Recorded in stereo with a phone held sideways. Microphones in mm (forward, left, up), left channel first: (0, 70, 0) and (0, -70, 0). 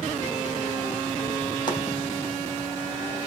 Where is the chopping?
35° left (ahead or behind), 4 m.